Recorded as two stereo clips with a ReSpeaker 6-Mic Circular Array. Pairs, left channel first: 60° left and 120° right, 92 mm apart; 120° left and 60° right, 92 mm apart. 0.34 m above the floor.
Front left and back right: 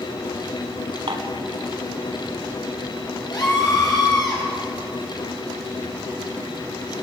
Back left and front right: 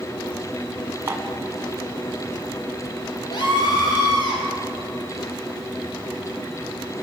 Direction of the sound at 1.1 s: 120° right.